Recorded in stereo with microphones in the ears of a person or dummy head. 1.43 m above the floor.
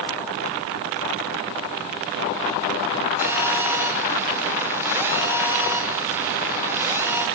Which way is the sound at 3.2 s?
10° right (ahead or behind).